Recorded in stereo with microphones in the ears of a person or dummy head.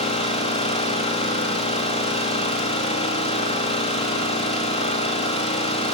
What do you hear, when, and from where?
0.0 s an engine running: 35° left (ahead or behind), 1.7 m